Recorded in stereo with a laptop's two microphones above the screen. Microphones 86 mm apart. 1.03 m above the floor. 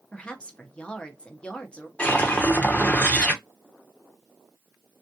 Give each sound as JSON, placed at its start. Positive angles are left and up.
{"t": 0.1, "sound": "a woman speaking", "side_deg": 15, "distance_m": 0.7}
{"t": 2.0, "sound": "a whoosh", "side_deg": 15, "distance_m": 0.9}